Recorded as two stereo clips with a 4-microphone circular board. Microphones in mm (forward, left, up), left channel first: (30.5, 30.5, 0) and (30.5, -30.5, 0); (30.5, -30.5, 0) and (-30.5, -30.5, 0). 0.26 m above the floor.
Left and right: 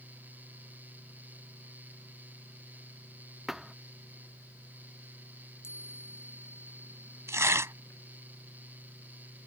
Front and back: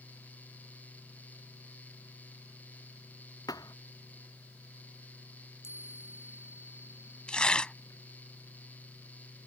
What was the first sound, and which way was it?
A thud, 5° right.